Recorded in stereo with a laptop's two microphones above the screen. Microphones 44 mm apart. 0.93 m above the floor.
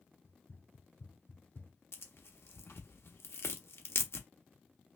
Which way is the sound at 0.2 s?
70° left (ahead or behind).